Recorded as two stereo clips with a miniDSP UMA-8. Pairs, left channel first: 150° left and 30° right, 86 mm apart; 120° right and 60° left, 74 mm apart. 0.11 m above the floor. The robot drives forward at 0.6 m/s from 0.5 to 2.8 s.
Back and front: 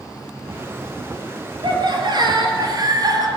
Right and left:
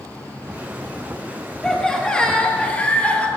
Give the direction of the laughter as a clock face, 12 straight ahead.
1 o'clock.